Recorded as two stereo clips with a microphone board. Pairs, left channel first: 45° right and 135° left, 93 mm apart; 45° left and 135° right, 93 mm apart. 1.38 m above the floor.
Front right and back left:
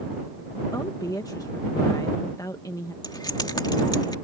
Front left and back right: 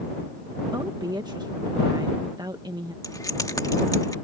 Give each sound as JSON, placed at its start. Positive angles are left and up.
{"t": 0.7, "sound": "a woman speaking", "azimuth_deg": -95}
{"t": 3.0, "sound": "keys jangling", "azimuth_deg": -5}